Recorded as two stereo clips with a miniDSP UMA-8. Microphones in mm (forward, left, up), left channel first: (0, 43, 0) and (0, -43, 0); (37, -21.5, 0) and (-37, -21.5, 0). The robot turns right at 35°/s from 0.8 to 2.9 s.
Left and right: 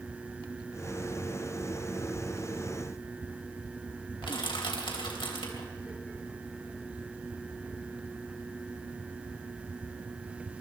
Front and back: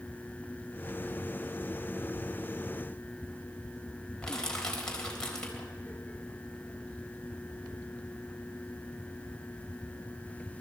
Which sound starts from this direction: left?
Crushing, at 4.2 s.